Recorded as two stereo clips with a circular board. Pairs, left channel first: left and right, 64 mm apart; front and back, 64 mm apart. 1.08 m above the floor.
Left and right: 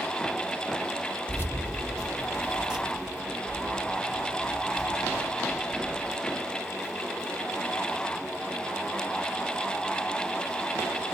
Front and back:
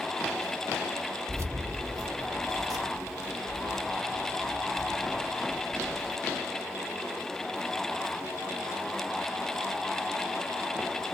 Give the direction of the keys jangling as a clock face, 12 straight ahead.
7 o'clock.